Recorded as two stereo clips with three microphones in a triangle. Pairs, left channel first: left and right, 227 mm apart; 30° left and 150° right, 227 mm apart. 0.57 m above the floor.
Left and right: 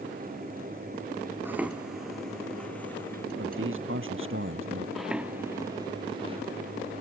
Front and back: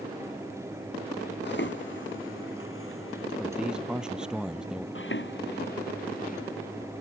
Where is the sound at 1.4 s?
10° right; by 3.3 s 10° left.